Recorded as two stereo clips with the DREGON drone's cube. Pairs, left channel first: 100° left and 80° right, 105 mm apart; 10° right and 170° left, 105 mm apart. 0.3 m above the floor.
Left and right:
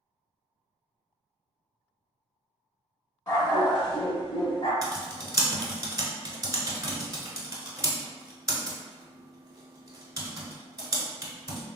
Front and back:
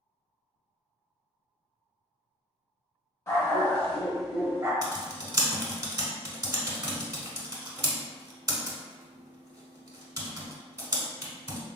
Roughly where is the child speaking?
No child speaking in this recording.